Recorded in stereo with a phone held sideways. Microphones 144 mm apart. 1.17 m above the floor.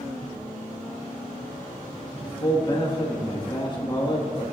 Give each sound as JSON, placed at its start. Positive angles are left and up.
{"t": 2.2, "sound": "a man speaking", "side_deg": 35, "distance_m": 1.6}